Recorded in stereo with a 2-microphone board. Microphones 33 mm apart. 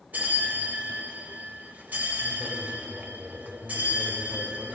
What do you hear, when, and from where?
0.1 s a bell: 55° right (ahead or behind), 0.9 m